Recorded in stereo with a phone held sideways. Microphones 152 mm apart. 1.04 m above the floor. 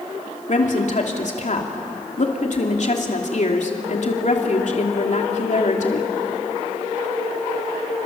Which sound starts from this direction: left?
A woman speaking, at 0.5 s.